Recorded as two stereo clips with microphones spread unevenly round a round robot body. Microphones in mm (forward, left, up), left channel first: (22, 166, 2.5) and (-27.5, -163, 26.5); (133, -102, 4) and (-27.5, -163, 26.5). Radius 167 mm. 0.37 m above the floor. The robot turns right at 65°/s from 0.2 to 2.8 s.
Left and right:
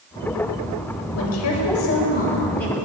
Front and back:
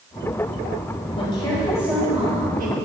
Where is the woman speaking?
65° left, 1.8 m; by 2.8 s 170° left, 1.8 m.